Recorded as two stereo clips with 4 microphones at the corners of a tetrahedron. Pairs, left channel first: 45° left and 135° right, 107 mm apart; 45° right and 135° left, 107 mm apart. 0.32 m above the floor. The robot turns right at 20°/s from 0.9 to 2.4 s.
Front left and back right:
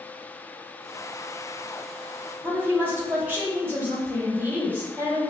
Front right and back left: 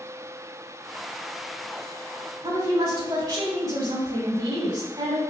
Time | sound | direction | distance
2.4 | a woman speaking | 160° left | 1.7 m